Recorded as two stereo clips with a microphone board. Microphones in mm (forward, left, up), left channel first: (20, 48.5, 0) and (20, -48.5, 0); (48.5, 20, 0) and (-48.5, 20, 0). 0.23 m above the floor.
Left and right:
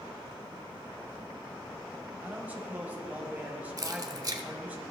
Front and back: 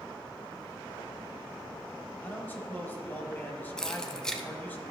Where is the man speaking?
40° right, 1.1 m.